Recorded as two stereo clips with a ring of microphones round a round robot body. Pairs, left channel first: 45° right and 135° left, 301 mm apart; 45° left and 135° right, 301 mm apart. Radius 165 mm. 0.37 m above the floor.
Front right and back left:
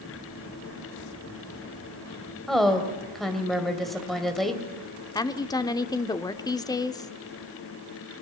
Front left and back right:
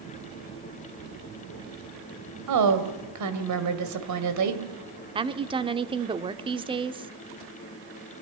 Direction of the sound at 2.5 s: 135° right.